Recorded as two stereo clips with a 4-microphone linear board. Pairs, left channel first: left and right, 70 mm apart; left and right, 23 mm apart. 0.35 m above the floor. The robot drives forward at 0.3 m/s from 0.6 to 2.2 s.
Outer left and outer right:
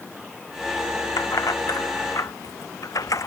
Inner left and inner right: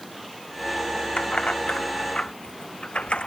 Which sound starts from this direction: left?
Keys jangling, at 1.2 s.